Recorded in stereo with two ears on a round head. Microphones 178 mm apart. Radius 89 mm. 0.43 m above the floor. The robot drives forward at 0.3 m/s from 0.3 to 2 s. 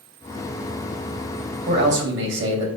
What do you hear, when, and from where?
1.7 s a man speaking: 60° right (ahead or behind), 2.5 m